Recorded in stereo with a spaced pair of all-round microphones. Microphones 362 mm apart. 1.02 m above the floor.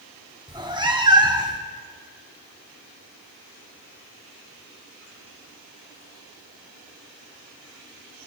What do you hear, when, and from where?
0.5 s a cat meowing: 10° right (ahead or behind), 0.9 m